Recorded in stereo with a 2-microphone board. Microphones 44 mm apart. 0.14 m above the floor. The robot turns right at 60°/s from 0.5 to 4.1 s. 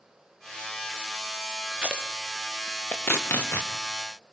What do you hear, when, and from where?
1.7 s tape being pulled: 30° right (ahead or behind), 3.5 m; by 3.7 s 85° left, 3.5 m